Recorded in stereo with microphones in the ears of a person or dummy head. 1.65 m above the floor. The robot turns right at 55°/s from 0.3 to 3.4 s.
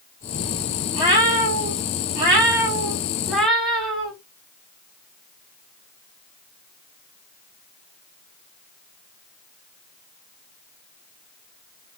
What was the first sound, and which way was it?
A cat meowing, 145° right.